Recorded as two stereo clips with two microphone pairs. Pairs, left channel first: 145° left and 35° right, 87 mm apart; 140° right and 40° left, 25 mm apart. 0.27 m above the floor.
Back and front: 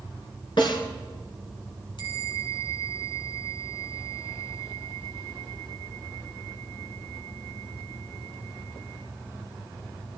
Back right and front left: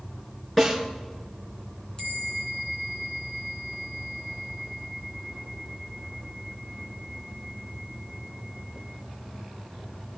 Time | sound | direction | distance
0.6 | a snare drum | 140° left | 3.5 m
2.0 | a bell | 165° left | 2.5 m